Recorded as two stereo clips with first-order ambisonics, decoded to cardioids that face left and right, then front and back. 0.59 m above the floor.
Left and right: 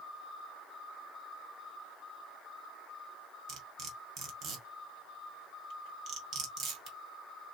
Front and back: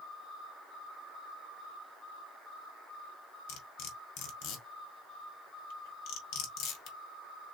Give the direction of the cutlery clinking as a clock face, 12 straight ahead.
1 o'clock.